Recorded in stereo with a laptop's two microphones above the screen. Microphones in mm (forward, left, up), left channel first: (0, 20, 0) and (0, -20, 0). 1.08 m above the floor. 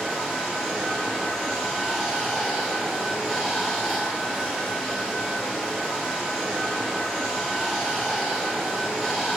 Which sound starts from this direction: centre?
Running water, at 0.0 s.